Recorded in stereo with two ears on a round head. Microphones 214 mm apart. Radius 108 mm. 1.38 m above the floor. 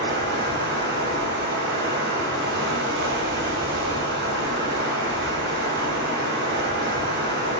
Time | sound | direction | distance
0.0 | running water | 50° right (ahead or behind) | 3 m